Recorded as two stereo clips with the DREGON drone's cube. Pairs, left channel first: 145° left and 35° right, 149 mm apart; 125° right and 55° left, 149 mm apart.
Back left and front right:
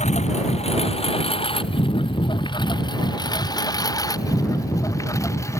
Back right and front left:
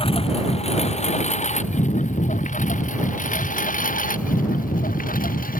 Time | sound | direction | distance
0.0 | a lawn mower | 175° right | ?